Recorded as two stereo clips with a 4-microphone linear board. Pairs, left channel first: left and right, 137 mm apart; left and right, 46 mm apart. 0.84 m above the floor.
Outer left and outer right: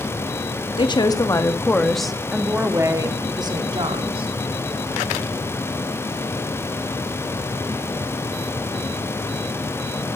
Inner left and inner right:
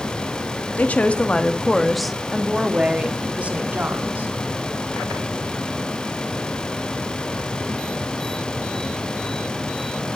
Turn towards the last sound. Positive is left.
turn(degrees=-40)  # may be behind; listen again after turning